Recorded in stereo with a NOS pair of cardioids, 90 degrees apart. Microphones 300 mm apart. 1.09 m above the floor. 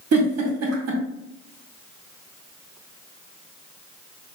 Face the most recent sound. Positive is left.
turn(degrees=-55)